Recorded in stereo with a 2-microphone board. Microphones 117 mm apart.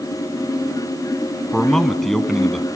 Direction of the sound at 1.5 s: 5° left (ahead or behind).